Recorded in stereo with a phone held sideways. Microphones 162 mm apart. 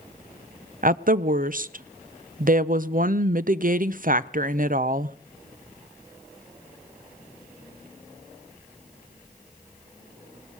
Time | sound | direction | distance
0.8 | a woman speaking | 60° right (ahead or behind) | 0.6 m